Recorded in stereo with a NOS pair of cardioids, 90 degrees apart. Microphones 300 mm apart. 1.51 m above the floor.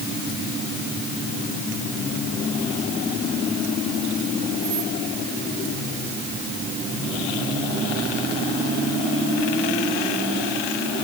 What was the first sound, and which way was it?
Only background noise.